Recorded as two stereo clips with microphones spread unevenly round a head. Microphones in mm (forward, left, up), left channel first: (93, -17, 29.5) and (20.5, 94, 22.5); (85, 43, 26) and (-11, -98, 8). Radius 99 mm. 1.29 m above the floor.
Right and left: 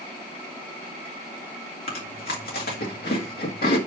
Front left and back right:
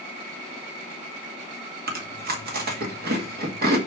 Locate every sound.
1.9 s chewing: 95° right, 1.9 m